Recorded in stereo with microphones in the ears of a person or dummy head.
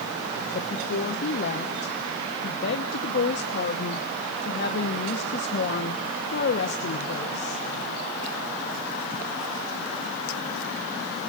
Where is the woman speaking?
50° left (ahead or behind), 1.1 m.